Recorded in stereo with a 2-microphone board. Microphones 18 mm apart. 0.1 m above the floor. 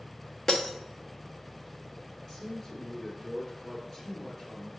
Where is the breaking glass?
30° left (ahead or behind), 1.1 m.